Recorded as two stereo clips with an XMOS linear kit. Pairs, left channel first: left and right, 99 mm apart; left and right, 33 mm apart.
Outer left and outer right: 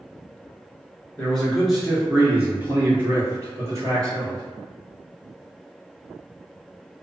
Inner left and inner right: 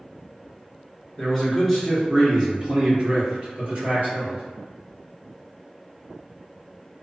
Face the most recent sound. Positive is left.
turn(degrees=-45)  # may be behind; listen again after turning